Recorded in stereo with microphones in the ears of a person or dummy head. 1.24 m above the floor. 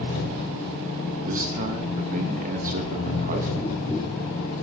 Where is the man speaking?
45° right (ahead or behind), 1.0 m.